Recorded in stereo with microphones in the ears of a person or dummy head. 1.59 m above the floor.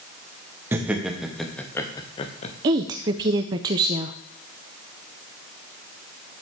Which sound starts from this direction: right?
A woman speaking, at 2.6 s.